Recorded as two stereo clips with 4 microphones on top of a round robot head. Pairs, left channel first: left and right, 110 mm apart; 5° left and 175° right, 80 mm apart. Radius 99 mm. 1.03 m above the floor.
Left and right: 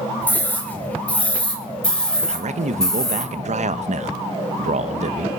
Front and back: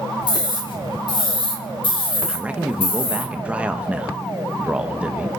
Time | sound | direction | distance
0.2 | a scream | 15° left | 5.5 m
2.3 | a man speaking | 100° right | 0.9 m